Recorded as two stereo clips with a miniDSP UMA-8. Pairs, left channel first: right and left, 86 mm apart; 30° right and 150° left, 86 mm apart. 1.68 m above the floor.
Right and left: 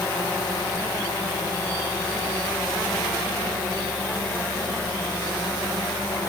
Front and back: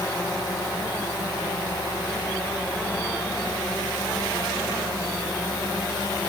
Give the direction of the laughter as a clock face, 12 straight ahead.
I don't hear laughter.